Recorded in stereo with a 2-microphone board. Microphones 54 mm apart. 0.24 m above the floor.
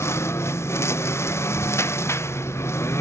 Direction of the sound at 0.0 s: 50° left (ahead or behind).